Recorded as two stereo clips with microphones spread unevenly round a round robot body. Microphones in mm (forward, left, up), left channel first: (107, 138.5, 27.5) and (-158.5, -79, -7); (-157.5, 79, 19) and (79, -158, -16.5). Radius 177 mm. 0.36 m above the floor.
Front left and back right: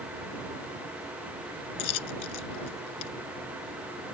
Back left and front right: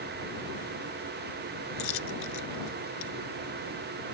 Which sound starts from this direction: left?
A dropped coin, at 1.8 s.